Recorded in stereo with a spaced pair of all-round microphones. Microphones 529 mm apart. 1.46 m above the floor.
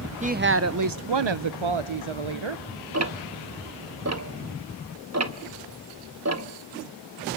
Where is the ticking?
30° right (ahead or behind), 1.0 m.